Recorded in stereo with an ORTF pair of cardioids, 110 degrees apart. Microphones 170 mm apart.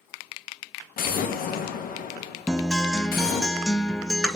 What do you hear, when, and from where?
1.0 s an explosion: 60° left, 1.2 m
2.5 s a guitar: 5° left, 0.5 m